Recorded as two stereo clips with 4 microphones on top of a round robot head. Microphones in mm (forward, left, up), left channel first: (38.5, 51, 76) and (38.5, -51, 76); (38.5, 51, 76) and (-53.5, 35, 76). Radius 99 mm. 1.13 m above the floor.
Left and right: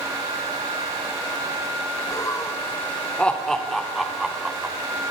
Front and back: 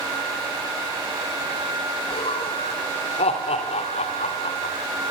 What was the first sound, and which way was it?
Laughter, 35° left.